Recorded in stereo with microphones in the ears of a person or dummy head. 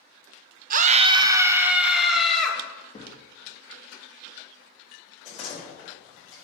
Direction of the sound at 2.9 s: 25° left (ahead or behind).